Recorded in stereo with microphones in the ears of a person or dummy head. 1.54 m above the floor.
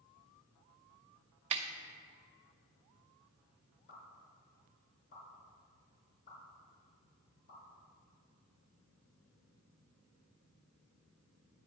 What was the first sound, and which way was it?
A snare drum, 35° right (ahead or behind).